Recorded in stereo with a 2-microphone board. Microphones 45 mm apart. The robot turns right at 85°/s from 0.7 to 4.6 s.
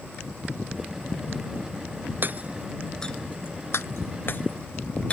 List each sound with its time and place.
2.2 s hammering: 50° right (ahead or behind); by 5.1 s 30° left (ahead or behind)